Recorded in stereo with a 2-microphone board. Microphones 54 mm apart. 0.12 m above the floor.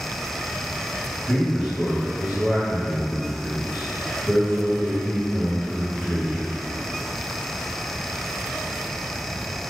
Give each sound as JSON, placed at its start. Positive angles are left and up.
{"t": 1.3, "sound": "a man speaking", "side_deg": 0, "distance_m": 1.5}